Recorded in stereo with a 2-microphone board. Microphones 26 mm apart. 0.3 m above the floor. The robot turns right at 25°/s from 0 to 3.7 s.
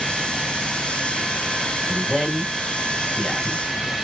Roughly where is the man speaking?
Centre.